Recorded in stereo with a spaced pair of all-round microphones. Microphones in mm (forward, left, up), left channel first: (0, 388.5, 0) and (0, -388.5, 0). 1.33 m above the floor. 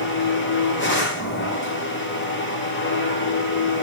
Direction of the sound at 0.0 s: 15° left (ahead or behind).